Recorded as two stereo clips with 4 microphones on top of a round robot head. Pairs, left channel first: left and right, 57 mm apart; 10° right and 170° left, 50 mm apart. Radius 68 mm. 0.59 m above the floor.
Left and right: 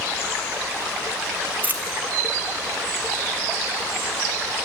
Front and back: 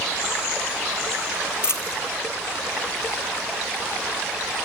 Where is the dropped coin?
35° right, 0.6 m.